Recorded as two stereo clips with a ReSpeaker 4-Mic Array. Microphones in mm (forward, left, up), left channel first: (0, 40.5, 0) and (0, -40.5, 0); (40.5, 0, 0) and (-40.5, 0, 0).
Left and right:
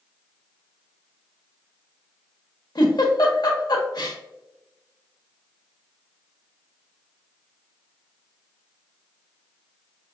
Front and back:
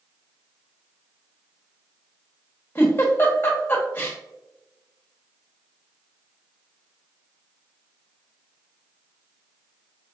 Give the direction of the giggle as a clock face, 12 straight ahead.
10 o'clock.